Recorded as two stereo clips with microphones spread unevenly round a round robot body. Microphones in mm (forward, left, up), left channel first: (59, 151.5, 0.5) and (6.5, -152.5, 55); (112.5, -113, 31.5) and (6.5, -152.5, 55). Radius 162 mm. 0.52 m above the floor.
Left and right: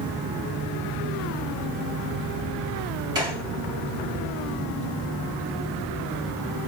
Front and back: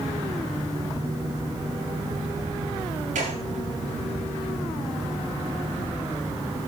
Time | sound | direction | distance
3.1 | a gunshot | straight behind | 4 m